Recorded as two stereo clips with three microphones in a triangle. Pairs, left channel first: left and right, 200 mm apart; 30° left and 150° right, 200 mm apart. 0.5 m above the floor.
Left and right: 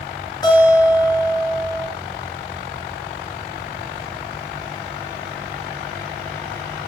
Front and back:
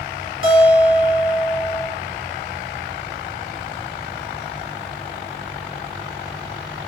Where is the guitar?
20° left, 1.3 m.